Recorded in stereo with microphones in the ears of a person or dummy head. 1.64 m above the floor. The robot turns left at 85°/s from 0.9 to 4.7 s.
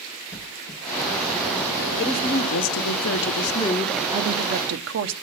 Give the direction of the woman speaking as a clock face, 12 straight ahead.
7 o'clock.